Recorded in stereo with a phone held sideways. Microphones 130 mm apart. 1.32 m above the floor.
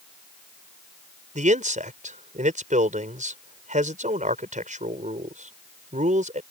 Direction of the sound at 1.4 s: 75° right (ahead or behind).